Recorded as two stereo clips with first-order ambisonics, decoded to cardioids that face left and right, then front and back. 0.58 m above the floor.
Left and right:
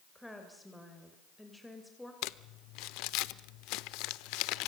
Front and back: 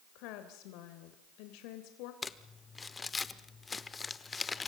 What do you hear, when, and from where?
0.1 s a woman speaking: 5° left, 2.5 m
2.2 s crumpling: 75° left, 0.8 m